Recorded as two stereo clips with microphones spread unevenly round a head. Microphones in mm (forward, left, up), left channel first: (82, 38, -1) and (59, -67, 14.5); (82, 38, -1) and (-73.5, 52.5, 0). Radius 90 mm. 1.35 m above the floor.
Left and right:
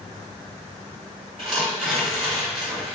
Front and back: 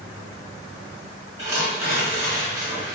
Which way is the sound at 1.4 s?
115° right.